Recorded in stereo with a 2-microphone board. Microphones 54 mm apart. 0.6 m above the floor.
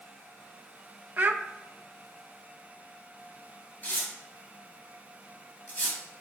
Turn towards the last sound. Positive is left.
turn(degrees=35)  # may be behind; listen again after turning